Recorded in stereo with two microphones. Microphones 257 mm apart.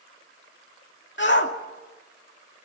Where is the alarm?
No alarm in this recording.